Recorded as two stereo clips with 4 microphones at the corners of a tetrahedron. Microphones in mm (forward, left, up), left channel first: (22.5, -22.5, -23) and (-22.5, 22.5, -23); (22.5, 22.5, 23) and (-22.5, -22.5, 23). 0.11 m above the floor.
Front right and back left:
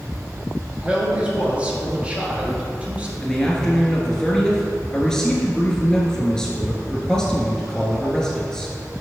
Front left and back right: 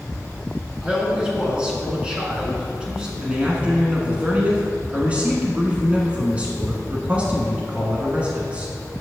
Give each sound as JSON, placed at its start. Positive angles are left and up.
{"t": 0.8, "sound": "a man speaking", "azimuth_deg": 170, "distance_m": 1.3}
{"t": 3.2, "sound": "a man speaking", "azimuth_deg": -105, "distance_m": 1.1}